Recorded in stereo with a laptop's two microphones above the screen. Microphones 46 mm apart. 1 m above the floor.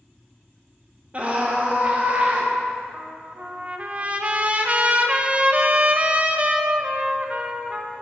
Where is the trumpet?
30° right (ahead or behind), 0.5 m.